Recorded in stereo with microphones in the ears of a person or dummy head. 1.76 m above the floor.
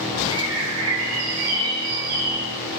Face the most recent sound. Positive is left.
turn(degrees=-75)  # may be behind; listen again after turning